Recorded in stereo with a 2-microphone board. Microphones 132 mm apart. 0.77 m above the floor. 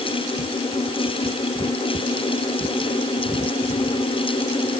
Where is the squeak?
No squeak in this recording.